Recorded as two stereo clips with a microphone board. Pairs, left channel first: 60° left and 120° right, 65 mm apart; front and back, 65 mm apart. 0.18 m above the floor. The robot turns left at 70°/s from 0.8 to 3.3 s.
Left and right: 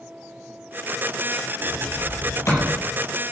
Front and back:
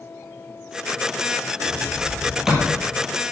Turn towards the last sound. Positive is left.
turn(degrees=40)